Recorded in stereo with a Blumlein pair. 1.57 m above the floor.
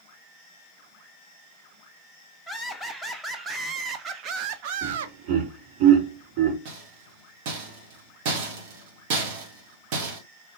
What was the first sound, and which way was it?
Laughter, 5° right.